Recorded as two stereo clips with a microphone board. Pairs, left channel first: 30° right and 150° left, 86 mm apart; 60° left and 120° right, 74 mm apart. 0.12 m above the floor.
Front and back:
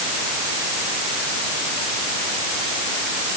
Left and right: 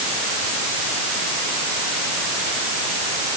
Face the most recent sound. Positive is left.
No sound to turn to.